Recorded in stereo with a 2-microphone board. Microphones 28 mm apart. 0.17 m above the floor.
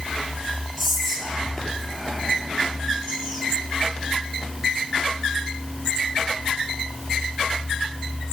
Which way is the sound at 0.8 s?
Centre (ahead or behind).